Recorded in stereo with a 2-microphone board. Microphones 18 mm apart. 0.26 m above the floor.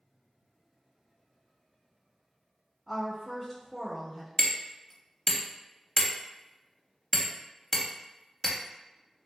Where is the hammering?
15° left (ahead or behind), 0.6 m.